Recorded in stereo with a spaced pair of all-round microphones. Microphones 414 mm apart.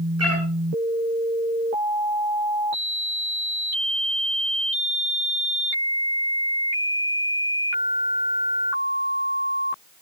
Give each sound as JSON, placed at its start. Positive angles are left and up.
{"t": 0.2, "sound": "a cat meowing", "side_deg": -35, "distance_m": 6.5}